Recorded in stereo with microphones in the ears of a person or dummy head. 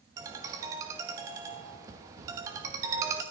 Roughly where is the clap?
I don't hear a clap.